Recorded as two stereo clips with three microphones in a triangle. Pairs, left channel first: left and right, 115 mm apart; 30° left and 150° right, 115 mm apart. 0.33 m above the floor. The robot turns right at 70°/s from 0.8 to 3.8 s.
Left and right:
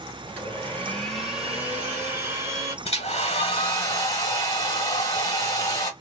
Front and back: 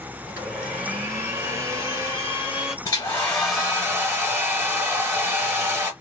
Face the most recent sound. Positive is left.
turn(degrees=145)